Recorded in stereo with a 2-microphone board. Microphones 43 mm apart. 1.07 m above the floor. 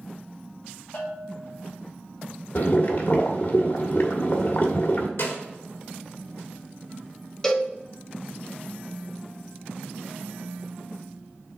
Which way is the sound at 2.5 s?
55° left (ahead or behind).